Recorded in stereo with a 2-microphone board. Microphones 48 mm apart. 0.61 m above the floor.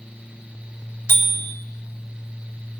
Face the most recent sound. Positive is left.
turn(degrees=80)